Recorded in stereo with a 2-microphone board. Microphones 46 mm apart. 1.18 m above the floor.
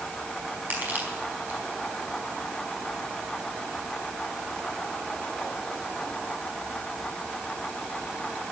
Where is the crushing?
40° right (ahead or behind), 4.5 m.